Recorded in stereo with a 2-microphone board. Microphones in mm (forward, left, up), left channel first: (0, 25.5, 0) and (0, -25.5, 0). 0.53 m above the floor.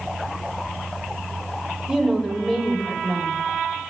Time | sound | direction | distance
1.9 | a woman speaking | 15° right (ahead or behind) | 2.5 m